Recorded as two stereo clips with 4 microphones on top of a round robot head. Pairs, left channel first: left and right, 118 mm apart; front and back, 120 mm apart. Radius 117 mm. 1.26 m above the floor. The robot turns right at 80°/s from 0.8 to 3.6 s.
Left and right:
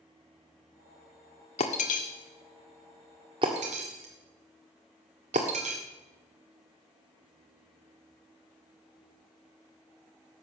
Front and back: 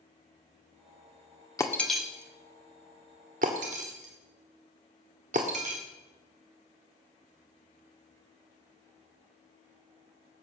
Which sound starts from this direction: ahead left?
Breaking glass, at 1.6 s.